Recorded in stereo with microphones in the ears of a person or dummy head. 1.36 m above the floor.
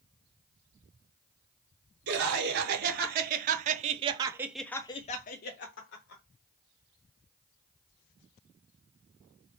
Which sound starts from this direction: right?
Laughter, at 2.1 s.